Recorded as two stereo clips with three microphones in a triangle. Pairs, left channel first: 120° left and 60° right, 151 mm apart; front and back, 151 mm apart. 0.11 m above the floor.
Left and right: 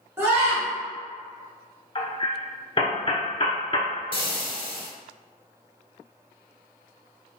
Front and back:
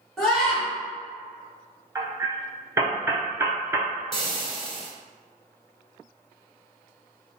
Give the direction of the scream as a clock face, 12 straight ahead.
3 o'clock.